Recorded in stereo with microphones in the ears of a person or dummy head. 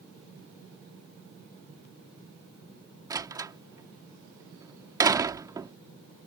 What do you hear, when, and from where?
3.1 s a door slam: 15° right (ahead or behind)